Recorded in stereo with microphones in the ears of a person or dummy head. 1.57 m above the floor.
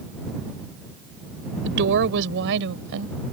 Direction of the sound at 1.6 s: 65° right (ahead or behind).